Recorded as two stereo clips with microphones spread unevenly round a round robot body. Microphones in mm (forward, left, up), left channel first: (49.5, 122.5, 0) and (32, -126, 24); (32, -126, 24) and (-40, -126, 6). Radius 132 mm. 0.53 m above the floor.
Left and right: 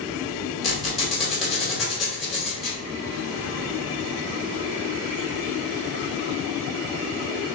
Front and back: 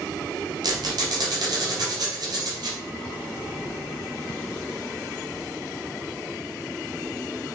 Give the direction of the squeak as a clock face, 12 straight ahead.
6 o'clock.